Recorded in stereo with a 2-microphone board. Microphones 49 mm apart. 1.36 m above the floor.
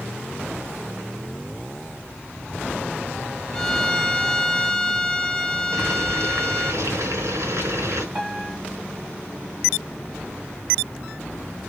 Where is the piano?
15° right (ahead or behind), 2.5 m.